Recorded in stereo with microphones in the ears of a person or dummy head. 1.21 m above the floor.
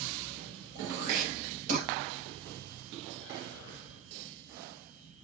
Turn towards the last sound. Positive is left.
turn(degrees=-40)  # may be behind; listen again after turning